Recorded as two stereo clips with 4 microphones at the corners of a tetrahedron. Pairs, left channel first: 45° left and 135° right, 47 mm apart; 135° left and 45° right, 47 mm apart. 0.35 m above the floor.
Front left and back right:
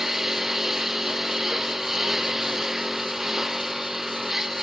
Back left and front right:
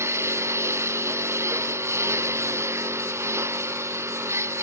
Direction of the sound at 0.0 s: 50° right.